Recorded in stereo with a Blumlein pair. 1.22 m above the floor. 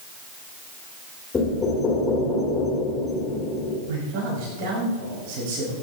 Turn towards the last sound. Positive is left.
turn(degrees=-45)